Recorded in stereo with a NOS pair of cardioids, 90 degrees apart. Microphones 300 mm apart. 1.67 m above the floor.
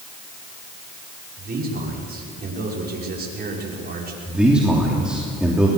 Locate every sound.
1.4 s a man speaking: 30° right, 6 m
4.3 s a man speaking: 5° right, 3.5 m